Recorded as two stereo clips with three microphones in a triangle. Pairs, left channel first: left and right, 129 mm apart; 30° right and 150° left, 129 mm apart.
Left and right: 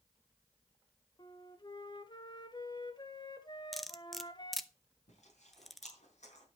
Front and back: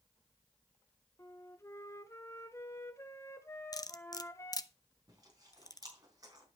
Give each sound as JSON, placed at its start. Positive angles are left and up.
{"t": 1.2, "sound": "a flute", "azimuth_deg": 35, "distance_m": 1.2}
{"t": 3.7, "sound": "cutlery clinking", "azimuth_deg": 0, "distance_m": 0.7}
{"t": 5.1, "sound": "chewing", "azimuth_deg": 95, "distance_m": 4.0}